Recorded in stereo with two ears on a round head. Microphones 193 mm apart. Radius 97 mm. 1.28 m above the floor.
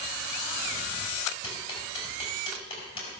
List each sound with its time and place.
1.4 s ticking: 25° left (ahead or behind), 5 m